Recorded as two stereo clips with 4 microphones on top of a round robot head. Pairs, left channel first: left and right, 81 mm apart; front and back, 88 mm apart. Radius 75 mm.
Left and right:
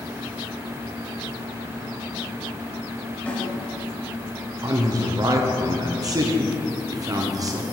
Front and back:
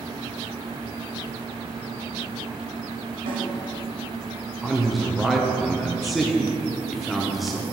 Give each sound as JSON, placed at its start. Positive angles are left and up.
{"t": 3.3, "sound": "a snare drum", "azimuth_deg": 165, "distance_m": 2.5}
{"t": 4.6, "sound": "a man speaking", "azimuth_deg": -90, "distance_m": 0.7}